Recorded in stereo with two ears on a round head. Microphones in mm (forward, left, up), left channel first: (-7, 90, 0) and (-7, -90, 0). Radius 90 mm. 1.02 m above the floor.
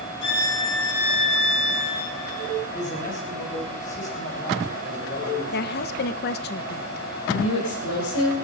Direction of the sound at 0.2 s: 65° left (ahead or behind).